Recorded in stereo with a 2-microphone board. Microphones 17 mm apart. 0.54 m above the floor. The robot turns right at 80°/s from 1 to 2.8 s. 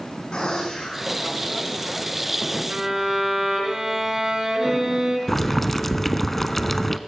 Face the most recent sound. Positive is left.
turn(degrees=15)  # may be behind; listen again after turning